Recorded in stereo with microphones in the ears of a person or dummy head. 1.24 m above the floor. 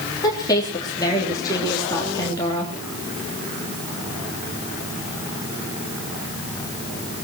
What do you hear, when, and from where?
0.2 s a woman speaking: 20° left (ahead or behind), 3 m